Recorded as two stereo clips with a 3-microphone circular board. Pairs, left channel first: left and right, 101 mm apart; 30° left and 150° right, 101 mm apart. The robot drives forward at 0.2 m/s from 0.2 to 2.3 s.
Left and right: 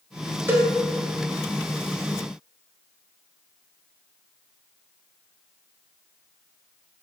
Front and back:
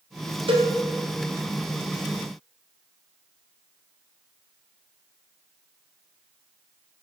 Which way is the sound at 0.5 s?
155° right.